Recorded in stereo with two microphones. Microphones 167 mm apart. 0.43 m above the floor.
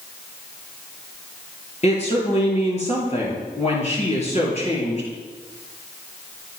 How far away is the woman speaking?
About 7.5 m.